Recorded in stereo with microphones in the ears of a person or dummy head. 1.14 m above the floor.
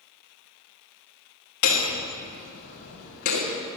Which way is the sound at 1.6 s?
55° left (ahead or behind).